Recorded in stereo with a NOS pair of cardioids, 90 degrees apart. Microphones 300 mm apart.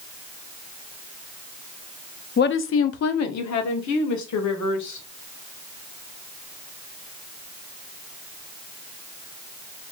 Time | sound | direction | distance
2.4 | a woman speaking | 35° left | 0.6 m